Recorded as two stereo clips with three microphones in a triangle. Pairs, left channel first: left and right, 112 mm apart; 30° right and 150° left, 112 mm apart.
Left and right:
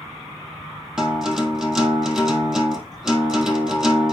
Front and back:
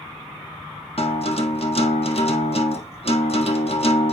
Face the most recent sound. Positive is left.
turn(degrees=-5)